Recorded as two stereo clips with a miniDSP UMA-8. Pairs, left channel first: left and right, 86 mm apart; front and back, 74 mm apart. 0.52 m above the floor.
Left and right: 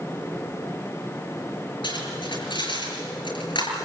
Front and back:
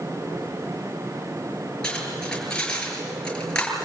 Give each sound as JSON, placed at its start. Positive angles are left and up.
{"t": 1.8, "sound": "cutlery clinking", "azimuth_deg": 75, "distance_m": 6.5}